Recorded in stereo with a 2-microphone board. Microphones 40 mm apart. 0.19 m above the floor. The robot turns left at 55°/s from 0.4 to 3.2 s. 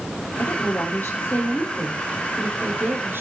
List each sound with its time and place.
0.4 s a woman speaking: 85° left, 6 m; by 3.2 s 65° right, 6 m